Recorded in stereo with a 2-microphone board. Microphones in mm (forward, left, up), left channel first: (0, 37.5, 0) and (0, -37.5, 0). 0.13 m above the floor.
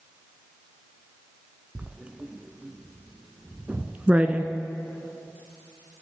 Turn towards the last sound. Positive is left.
turn(degrees=-20)  # may be behind; listen again after turning